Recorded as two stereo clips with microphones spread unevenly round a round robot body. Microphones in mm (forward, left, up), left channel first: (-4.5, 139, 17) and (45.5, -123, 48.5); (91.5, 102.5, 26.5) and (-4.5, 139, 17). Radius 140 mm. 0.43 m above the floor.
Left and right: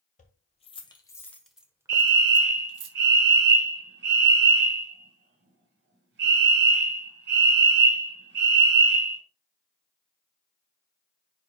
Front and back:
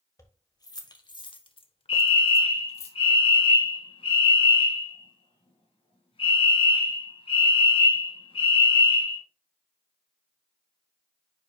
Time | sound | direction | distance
0.2 | keys jangling | 40° left | 1.9 m
1.9 | a fire alarm | 35° right | 2.5 m